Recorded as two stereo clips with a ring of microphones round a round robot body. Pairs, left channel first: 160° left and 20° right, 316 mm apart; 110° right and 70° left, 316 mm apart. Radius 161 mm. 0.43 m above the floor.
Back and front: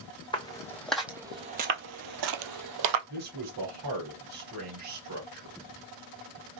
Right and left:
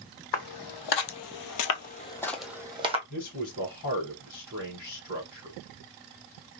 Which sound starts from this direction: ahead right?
A man speaking, at 3.1 s.